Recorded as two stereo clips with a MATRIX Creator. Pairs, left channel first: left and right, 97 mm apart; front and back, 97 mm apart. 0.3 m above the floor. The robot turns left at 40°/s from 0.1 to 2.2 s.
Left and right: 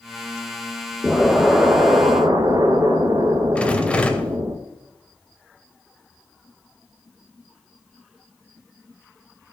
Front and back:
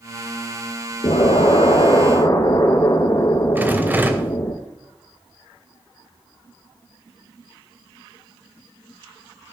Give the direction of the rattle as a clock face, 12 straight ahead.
7 o'clock.